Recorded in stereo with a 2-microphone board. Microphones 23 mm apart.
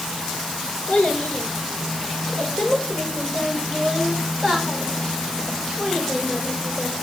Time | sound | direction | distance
0.9 | a child speaking | 55° left (ahead or behind) | 5 m